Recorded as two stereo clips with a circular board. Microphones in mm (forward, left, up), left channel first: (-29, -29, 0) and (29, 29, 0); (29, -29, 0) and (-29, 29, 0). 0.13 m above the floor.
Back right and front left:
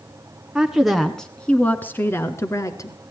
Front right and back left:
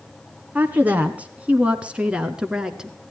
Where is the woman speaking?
110° left, 1.3 m; by 3.0 s 145° right, 1.6 m.